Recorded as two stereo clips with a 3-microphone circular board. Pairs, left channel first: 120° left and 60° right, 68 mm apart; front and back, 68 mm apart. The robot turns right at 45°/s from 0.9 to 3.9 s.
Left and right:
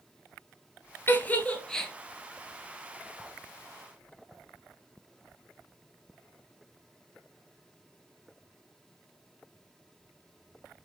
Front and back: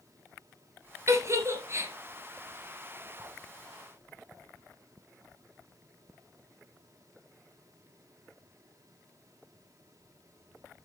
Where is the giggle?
165° left, 1.1 m; by 1.9 s 160° right, 1.1 m.